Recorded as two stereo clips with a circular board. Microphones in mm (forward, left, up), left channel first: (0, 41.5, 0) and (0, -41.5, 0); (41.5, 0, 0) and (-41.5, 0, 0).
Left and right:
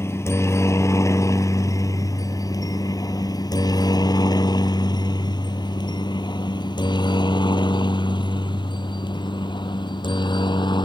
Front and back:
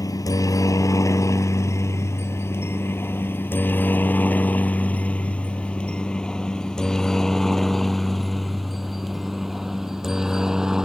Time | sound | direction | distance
0.0 | a helicopter | 35° left | ?